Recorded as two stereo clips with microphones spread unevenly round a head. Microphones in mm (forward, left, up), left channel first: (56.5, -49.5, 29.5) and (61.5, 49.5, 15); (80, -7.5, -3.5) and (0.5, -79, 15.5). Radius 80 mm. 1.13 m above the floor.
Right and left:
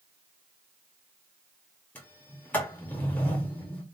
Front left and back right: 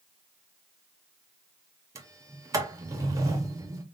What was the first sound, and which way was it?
A sliding door, 150° right.